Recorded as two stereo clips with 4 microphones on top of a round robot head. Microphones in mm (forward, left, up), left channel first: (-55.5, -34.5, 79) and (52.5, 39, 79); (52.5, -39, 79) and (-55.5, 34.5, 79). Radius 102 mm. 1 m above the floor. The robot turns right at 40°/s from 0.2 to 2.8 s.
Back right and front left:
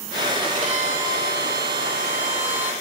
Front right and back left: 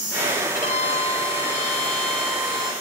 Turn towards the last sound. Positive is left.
turn(degrees=85)